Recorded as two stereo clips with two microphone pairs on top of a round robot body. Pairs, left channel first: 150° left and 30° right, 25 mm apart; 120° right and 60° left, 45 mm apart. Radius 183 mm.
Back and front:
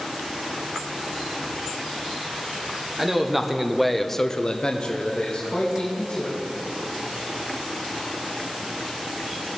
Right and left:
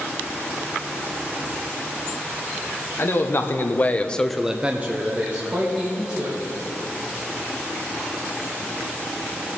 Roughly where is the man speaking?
Right.